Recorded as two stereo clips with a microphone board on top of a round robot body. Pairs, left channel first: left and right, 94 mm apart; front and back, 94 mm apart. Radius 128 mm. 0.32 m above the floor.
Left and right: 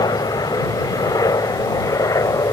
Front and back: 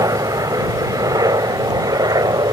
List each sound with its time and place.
0.0 s a helicopter: 130° left; by 2.5 s 140° left